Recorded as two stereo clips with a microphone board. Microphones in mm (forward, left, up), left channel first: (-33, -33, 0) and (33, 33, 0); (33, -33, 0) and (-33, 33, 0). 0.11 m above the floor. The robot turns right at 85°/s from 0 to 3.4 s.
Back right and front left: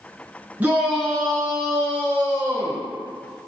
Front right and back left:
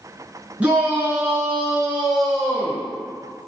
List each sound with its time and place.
0.6 s a shout: 85° left, 1.1 m; by 2.9 s 85° right, 1.1 m